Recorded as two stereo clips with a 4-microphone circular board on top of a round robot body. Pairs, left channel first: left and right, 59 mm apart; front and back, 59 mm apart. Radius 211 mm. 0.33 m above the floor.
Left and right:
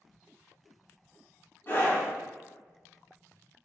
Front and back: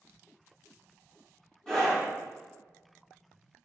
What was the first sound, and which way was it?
A scream, 75° left.